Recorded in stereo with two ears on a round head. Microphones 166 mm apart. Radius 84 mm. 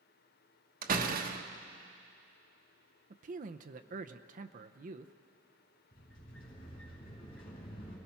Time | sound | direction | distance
0.8 | a door slam | 50° right (ahead or behind) | 1.2 m
3.1 | a man speaking | 45° right (ahead or behind) | 0.7 m
5.9 | a sliding door | 45° left (ahead or behind) | 7.5 m